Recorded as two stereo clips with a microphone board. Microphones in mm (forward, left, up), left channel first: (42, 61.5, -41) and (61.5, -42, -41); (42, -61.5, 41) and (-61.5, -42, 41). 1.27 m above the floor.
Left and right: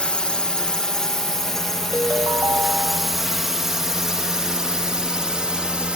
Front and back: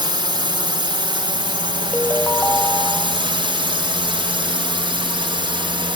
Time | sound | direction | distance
0.0 | a drone | 175° left | ?
1.9 | a ringtone | 55° right | ?